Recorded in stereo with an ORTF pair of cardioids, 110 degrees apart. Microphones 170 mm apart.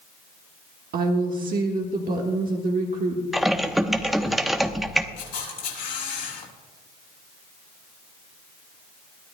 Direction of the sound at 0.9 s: 60° right.